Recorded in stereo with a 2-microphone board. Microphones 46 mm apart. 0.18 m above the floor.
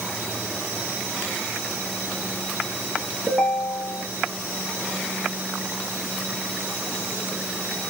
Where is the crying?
I don't hear crying.